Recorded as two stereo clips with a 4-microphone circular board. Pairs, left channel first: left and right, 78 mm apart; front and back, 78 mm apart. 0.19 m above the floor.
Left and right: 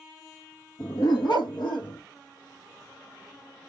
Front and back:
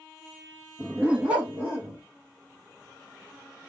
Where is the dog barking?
110° left, 1.9 m; by 2.0 s 105° left, 2.5 m.